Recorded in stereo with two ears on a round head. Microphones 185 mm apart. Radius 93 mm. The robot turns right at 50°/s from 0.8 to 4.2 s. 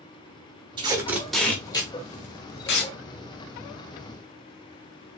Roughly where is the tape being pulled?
Right.